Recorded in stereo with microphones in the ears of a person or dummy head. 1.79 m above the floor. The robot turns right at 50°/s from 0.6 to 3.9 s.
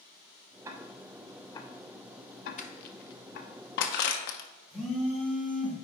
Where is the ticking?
15° right (ahead or behind), 0.6 m; by 3.5 s 45° left (ahead or behind), 0.6 m.